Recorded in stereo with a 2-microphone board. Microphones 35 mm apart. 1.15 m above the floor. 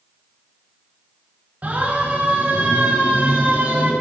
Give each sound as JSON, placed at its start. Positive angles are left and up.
{"t": 1.6, "sound": "a siren", "side_deg": -50, "distance_m": 7.0}